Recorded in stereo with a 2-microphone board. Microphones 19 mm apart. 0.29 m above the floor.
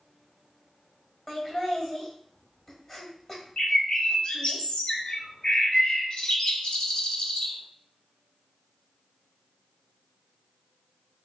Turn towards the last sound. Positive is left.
turn(degrees=50)  # may be behind; listen again after turning